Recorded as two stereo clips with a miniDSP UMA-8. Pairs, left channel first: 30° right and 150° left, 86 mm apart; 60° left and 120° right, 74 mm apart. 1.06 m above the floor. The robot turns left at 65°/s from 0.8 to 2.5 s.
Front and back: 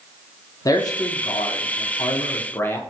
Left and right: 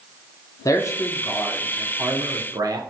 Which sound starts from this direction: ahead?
A man speaking, at 0.7 s.